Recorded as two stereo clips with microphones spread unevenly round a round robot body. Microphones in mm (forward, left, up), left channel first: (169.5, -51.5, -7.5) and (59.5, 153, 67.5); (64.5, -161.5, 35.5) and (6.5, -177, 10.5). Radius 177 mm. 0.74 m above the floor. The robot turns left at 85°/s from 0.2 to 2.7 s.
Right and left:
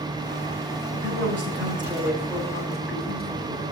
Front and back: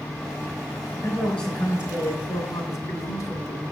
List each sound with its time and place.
0.9 s a man speaking: 135° left, 3 m; by 3.6 s 20° right, 3 m